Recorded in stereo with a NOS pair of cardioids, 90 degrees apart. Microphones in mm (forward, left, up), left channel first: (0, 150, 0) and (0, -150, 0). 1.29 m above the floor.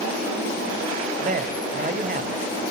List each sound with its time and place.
1.2 s a man speaking: 25° right, 6 m